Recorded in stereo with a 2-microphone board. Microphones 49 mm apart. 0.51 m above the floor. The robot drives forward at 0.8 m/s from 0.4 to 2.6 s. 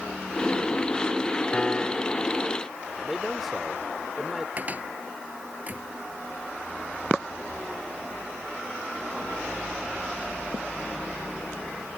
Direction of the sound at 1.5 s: 25° left (ahead or behind).